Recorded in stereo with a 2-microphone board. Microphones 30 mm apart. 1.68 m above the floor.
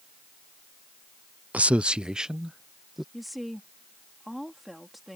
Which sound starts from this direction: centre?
A woman speaking, at 3.1 s.